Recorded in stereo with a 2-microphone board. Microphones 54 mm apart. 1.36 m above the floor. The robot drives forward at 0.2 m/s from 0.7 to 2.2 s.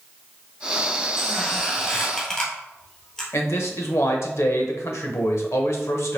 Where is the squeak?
15° left (ahead or behind), 1.4 m.